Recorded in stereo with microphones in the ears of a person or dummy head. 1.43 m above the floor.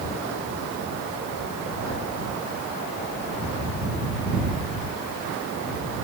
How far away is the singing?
I don't hear singing.